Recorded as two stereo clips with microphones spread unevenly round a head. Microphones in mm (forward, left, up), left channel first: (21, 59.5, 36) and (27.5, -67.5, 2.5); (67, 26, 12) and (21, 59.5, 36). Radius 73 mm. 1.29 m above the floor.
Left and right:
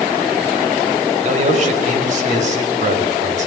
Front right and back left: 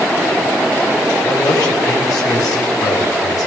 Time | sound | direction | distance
1.2 | a man speaking | 60° right | 5 m